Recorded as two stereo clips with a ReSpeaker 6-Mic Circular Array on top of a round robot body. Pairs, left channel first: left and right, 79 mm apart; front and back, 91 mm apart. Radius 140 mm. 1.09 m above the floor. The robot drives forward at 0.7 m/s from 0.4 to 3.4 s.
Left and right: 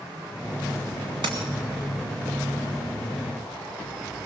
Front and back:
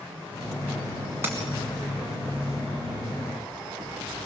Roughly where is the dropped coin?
Behind right.